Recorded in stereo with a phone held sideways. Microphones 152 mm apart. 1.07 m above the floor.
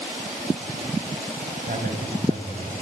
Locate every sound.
1.7 s a man speaking: 60° right (ahead or behind), 5.5 m